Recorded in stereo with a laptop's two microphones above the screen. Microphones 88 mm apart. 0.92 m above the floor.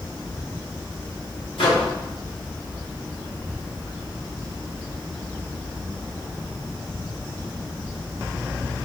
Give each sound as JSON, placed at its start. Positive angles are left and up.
{"t": 1.6, "sound": "a microwave", "side_deg": 80, "distance_m": 1.2}